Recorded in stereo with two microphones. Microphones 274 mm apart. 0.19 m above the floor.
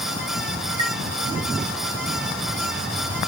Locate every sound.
0.8 s a chime: 15° right (ahead or behind), 1.5 m